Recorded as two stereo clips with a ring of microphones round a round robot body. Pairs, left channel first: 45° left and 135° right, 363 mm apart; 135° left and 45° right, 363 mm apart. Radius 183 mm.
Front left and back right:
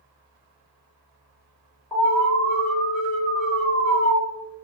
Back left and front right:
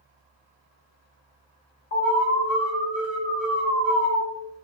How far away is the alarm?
About 1.5 m.